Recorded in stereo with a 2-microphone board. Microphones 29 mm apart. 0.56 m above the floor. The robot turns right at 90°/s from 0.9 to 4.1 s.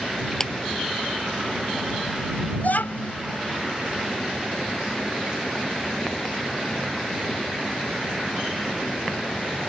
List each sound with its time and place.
0.4 s a clap: 10° left (ahead or behind)
2.6 s a child speaking: 65° left; by 3.1 s 115° left